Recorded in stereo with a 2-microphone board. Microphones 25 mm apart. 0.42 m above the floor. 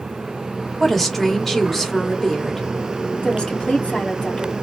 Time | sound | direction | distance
0.8 | a woman speaking | 10° left (ahead or behind) | 1.6 m
3.2 | a woman speaking | 45° left (ahead or behind) | 2.5 m